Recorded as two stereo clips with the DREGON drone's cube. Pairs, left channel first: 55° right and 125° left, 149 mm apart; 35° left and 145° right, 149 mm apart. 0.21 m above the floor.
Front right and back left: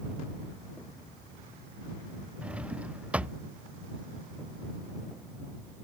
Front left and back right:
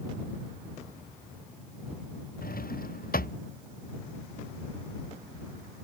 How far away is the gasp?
No gasp in this recording.